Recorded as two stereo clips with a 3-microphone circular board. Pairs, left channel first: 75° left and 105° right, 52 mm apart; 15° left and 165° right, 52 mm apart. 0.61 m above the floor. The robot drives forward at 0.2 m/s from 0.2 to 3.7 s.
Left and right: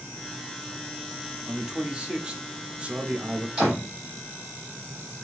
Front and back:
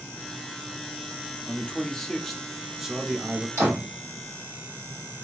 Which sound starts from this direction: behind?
A door slam, at 3.6 s.